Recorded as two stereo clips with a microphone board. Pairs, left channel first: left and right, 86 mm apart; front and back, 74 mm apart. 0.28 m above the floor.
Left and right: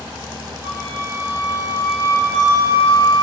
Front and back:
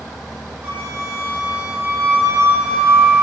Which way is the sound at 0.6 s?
135° right.